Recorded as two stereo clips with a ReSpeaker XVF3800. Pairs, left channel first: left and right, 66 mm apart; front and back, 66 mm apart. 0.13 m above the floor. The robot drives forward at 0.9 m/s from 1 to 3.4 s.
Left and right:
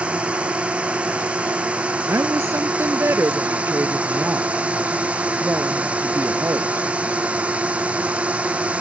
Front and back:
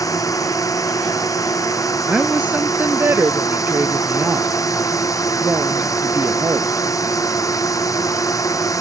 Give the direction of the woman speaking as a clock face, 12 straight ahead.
4 o'clock.